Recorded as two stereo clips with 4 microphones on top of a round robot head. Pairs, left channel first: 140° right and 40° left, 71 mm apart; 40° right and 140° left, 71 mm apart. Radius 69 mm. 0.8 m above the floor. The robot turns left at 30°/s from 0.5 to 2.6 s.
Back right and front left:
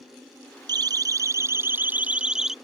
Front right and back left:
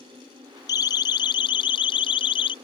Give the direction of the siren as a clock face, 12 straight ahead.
12 o'clock.